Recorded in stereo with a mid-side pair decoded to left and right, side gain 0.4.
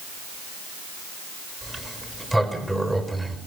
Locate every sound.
1.6 s a sliding door: 10° right, 4.5 m